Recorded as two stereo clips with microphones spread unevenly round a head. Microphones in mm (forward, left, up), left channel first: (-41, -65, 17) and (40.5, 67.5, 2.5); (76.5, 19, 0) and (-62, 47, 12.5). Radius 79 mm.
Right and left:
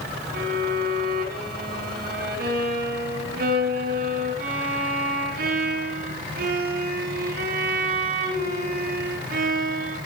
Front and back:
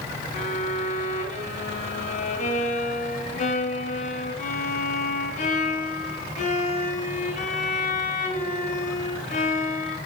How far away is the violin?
About 5.5 m.